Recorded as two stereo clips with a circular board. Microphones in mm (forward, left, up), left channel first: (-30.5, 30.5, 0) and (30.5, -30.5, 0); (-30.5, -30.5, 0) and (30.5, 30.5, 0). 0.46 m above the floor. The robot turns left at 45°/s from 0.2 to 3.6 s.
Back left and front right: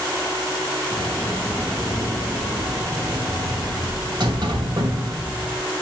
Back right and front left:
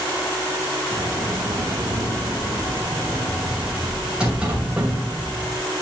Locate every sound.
0.9 s a sliding door: 90° left, 2.5 m; by 5.7 s 30° right, 2.5 m